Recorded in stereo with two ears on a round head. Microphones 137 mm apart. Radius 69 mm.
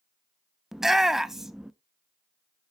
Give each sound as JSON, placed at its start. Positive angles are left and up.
{"t": 0.7, "sound": "a shout", "side_deg": -5, "distance_m": 0.6}